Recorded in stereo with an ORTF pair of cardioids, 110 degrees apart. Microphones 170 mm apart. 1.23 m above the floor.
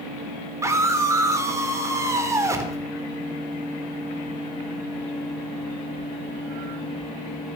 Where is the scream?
15° right, 4 m.